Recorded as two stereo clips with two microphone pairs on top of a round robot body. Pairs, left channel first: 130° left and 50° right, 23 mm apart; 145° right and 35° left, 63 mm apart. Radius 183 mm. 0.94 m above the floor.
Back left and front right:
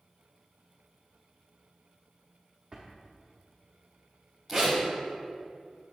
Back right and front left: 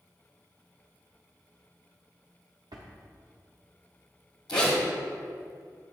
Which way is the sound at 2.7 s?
25° left.